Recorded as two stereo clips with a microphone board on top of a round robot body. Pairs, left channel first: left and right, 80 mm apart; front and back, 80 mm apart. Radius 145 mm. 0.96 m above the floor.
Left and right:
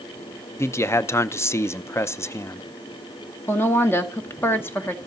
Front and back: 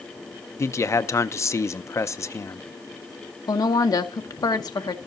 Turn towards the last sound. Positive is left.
turn(degrees=30)